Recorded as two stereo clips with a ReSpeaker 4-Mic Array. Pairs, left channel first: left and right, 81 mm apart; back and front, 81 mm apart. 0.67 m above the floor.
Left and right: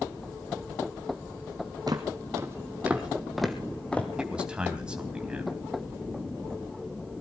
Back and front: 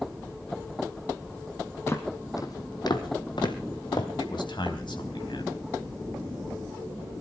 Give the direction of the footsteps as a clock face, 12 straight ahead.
4 o'clock.